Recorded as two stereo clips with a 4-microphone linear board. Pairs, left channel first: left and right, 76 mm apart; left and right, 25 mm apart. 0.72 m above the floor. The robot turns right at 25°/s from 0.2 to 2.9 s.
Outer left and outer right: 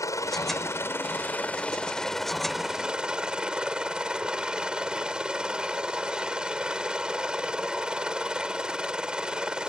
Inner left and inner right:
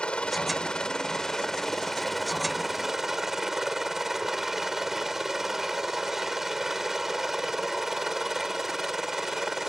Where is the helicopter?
125° left; by 9.7 s 165° right.